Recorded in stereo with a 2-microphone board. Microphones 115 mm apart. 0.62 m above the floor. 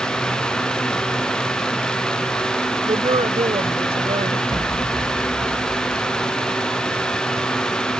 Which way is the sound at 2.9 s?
60° right (ahead or behind).